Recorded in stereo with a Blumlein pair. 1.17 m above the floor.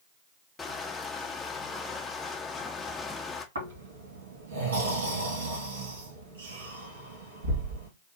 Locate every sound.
0.6 s crushing: 15° left, 0.7 m
3.5 s snoring: 65° right, 2 m